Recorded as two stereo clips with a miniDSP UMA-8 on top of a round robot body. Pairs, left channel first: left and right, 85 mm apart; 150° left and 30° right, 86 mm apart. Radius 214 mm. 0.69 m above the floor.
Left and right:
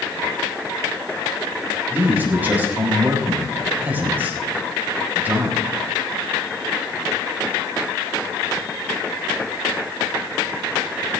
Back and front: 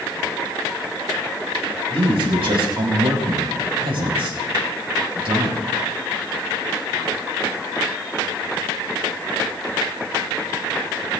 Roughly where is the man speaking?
Ahead.